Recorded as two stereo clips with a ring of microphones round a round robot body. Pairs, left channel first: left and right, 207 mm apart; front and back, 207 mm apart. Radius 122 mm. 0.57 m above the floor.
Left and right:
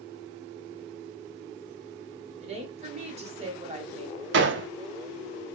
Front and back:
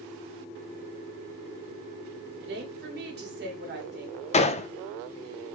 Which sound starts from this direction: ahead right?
A gunshot, at 4.3 s.